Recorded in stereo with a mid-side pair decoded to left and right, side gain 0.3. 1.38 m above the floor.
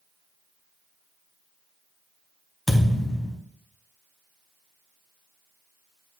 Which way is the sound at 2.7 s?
15° left.